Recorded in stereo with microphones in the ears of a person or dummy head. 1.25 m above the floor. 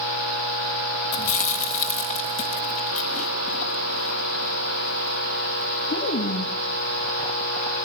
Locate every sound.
1.1 s chewing: 40° left (ahead or behind), 1.7 m